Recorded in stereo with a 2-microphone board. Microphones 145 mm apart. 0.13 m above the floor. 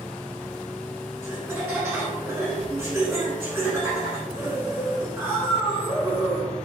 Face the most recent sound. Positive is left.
turn(degrees=-15)  # may be behind; listen again after turning